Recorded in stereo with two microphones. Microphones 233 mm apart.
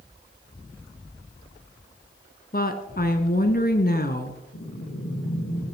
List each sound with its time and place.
2.5 s a woman speaking: 40° left (ahead or behind), 1.4 m
4.5 s breathing: 65° left (ahead or behind), 4.5 m